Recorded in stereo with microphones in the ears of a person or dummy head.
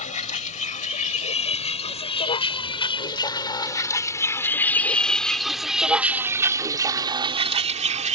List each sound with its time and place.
0.0 s a vehicle: 40° left (ahead or behind); by 8.2 s 35° right (ahead or behind)